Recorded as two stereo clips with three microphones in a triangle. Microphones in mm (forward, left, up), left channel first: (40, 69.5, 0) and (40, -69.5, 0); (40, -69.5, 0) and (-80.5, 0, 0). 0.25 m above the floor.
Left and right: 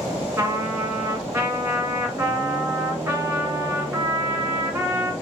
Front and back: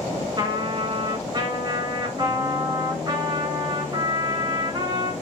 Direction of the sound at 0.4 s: 160° right.